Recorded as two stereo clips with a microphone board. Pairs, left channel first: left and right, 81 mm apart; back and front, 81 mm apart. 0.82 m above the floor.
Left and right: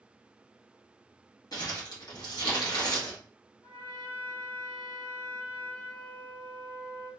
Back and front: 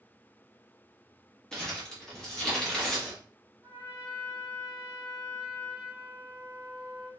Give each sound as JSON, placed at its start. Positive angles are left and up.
{"t": 1.5, "sound": "crumpling", "azimuth_deg": 105, "distance_m": 1.0}
{"t": 3.6, "sound": "a trumpet", "azimuth_deg": 80, "distance_m": 1.6}